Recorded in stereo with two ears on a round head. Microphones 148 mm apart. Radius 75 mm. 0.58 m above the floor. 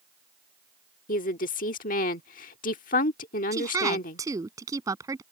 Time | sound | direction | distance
1.1 | a woman speaking | 55° left (ahead or behind) | ?
3.5 | a woman speaking | 20° right (ahead or behind) | ?